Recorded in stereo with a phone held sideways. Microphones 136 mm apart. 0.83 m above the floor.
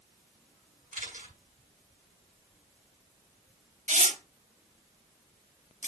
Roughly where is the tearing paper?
Right.